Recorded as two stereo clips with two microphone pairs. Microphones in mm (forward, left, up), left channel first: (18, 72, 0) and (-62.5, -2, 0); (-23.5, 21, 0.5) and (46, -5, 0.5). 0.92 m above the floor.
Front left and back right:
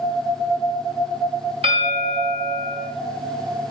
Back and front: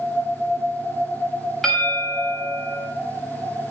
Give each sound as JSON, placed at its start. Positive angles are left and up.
{"t": 1.6, "sound": "a bell", "azimuth_deg": -115, "distance_m": 4.0}